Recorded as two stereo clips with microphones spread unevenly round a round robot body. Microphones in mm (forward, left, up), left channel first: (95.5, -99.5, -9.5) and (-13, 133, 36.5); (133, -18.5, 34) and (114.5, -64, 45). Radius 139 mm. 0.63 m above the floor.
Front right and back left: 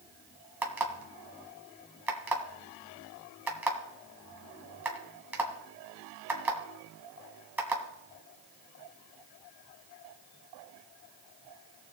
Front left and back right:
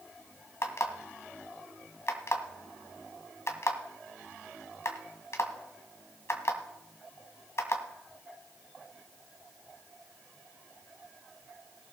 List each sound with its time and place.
0.6 s an alarm clock: 30° left, 2.0 m